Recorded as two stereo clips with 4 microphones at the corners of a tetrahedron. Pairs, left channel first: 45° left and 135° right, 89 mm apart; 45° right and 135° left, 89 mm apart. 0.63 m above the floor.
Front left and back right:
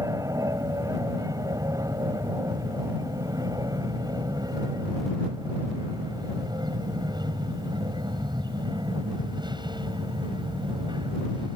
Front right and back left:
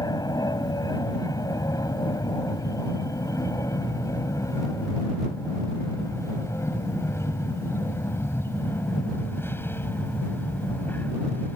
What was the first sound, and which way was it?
An aircraft, 85° right.